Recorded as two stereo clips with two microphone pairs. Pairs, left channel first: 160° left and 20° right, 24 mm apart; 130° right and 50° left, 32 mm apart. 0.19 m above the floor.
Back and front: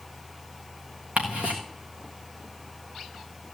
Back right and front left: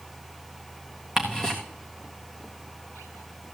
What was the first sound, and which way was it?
Ticking, 20° right.